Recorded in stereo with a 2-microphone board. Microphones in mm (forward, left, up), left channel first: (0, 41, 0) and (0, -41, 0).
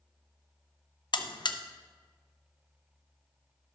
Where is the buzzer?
60° left (ahead or behind), 0.6 m.